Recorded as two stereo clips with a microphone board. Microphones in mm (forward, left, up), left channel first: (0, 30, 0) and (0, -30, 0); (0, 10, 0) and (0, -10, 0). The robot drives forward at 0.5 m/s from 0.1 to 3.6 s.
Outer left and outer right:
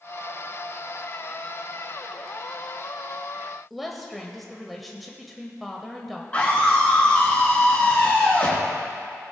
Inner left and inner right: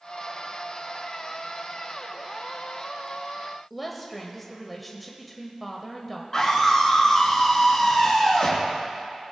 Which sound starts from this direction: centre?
A woman speaking, at 3.7 s.